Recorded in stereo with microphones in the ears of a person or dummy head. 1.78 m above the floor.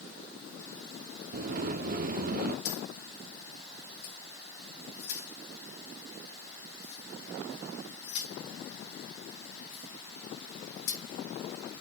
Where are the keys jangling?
60° left (ahead or behind), 1.9 m.